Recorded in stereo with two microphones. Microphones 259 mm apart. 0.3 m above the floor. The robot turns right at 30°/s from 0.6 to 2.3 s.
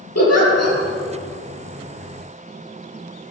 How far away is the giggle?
About 6 m.